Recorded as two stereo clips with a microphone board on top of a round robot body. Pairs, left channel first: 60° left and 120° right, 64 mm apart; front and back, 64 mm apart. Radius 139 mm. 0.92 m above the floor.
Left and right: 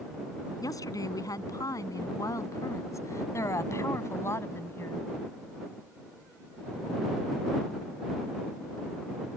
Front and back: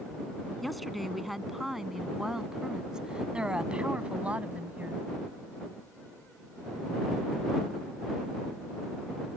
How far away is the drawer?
I don't hear a drawer.